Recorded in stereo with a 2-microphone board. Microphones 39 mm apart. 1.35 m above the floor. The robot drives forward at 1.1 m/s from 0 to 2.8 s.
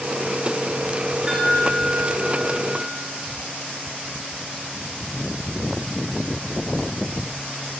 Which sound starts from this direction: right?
A chime, at 1.3 s.